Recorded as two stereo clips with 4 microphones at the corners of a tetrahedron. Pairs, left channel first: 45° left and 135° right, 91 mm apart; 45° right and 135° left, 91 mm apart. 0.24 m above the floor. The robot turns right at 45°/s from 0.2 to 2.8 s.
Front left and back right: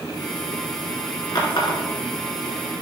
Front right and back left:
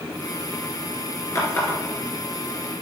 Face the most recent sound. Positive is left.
turn(degrees=75)